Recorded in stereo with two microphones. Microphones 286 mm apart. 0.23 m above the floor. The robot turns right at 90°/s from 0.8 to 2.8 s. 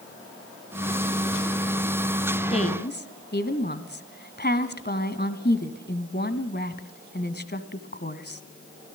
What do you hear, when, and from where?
2.5 s a woman speaking: 20° left (ahead or behind), 1.5 m; by 8.4 s 35° left (ahead or behind), 1.5 m